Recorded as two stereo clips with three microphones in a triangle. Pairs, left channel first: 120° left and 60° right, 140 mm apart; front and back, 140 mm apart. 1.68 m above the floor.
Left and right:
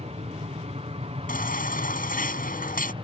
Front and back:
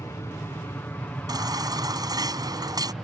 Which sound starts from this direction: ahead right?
An aircraft, at 0.0 s.